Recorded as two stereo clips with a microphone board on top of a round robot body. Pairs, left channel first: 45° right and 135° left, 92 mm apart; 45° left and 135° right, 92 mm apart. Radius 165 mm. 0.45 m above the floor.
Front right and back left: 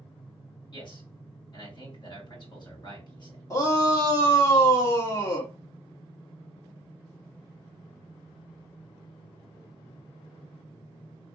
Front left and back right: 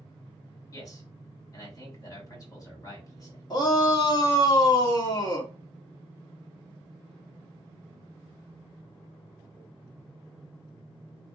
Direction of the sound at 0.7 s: 5° right.